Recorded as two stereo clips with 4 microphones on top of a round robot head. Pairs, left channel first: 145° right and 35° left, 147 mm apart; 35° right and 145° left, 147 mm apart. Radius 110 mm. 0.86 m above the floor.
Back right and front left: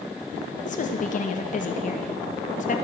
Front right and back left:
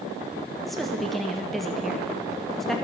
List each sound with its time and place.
0.7 s a woman speaking: 125° right, 1.2 m